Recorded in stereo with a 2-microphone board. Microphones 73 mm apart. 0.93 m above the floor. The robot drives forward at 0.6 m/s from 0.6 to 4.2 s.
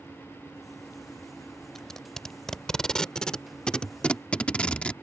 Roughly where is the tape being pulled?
Centre.